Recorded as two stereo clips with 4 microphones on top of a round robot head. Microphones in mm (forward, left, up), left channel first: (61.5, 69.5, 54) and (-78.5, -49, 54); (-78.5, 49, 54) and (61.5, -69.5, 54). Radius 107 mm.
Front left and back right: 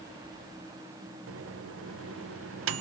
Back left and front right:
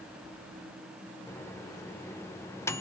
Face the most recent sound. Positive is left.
turn(degrees=-145)